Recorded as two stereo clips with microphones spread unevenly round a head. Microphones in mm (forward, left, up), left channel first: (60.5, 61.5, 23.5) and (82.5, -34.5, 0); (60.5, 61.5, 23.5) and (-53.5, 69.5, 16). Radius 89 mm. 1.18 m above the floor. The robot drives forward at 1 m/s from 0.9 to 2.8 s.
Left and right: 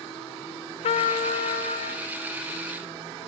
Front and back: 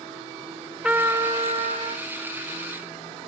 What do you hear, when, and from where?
0.8 s a trumpet: 105° left, 0.7 m; by 2.1 s 160° left, 1.5 m